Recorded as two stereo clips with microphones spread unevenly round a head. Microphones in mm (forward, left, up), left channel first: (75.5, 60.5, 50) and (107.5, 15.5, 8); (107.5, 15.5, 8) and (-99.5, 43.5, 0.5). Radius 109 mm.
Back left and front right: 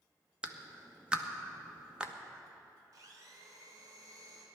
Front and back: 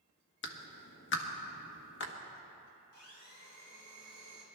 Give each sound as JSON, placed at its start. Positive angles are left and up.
{"t": 0.4, "sound": "a clap", "azimuth_deg": 25, "distance_m": 1.3}
{"t": 2.9, "sound": "a blender", "azimuth_deg": -30, "distance_m": 3.0}